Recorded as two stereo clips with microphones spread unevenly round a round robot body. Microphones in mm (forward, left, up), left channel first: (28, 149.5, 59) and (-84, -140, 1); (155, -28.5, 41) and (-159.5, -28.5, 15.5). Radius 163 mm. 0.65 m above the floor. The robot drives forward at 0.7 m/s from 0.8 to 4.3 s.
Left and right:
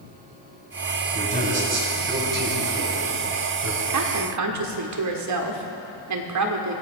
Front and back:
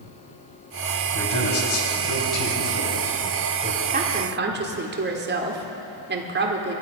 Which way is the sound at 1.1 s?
45° right.